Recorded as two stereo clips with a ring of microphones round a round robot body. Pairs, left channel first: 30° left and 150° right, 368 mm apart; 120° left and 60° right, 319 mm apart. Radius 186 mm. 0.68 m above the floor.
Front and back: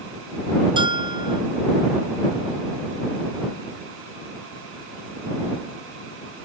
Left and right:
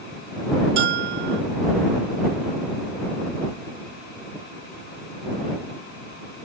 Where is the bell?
70° right.